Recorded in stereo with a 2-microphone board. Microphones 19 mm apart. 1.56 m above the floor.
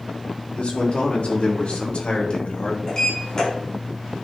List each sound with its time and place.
0.6 s a man speaking: 85° left, 4 m; by 2.8 s 50° left (ahead or behind), 2.5 m
2.9 s a sliding door: 40° left (ahead or behind), 4.5 m